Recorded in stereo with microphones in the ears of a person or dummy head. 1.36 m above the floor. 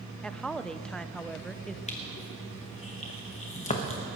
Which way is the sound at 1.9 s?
35° left (ahead or behind).